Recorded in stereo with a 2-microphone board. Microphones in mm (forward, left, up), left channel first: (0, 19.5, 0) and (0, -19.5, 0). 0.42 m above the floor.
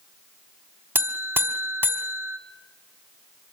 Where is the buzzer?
80° right, 1.3 m.